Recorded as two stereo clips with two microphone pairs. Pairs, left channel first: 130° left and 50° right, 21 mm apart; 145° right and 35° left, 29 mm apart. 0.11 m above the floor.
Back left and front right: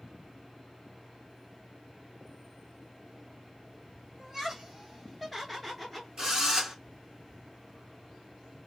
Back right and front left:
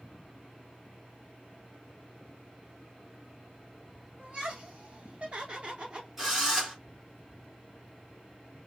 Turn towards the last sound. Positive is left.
turn(degrees=-35)